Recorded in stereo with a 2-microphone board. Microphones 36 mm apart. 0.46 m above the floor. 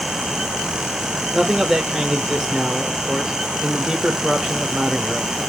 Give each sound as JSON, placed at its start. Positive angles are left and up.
{"t": 1.3, "sound": "a man speaking", "side_deg": -15, "distance_m": 1.1}